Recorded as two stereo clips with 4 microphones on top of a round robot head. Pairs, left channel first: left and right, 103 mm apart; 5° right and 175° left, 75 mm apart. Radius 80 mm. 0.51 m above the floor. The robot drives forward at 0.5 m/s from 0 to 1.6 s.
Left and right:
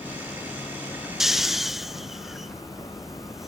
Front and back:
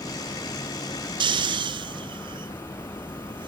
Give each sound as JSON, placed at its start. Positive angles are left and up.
{"t": 1.2, "sound": "snoring", "azimuth_deg": -175, "distance_m": 0.6}